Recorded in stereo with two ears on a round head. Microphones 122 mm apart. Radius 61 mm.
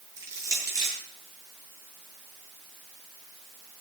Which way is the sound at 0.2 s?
25° right (ahead or behind).